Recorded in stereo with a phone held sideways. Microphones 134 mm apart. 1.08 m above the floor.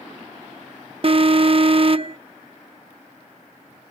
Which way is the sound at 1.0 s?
45° right (ahead or behind).